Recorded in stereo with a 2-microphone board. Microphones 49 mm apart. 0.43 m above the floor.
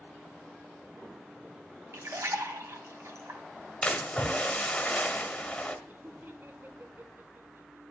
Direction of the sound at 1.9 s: 70° right (ahead or behind).